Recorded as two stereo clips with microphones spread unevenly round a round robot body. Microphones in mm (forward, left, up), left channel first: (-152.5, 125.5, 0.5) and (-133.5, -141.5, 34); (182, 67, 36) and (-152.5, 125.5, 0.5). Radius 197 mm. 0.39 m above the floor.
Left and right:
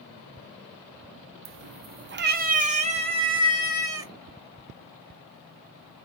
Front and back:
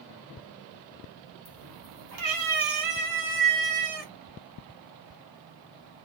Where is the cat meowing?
115° right, 0.6 m; by 4.1 s 165° right, 1.7 m.